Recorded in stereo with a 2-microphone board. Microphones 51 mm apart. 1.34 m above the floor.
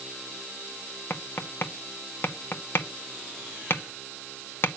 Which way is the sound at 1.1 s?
50° left (ahead or behind).